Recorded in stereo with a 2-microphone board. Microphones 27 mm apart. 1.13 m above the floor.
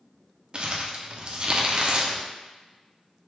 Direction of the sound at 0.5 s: 35° right (ahead or behind).